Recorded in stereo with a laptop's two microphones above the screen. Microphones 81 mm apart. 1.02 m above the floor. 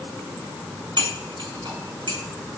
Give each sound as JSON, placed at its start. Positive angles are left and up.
{"t": 1.0, "sound": "cutlery clinking", "side_deg": -70, "distance_m": 5.5}